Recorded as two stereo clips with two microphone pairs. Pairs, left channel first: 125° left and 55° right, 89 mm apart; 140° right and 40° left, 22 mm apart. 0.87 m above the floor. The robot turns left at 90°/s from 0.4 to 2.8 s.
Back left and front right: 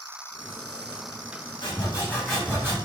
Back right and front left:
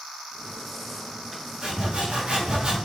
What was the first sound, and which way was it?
Sawing, 100° left.